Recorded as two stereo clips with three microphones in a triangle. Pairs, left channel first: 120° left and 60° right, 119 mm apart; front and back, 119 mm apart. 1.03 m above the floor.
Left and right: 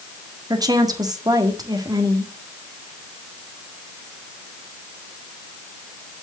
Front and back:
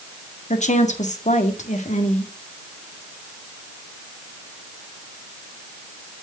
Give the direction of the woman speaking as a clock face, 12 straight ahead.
12 o'clock.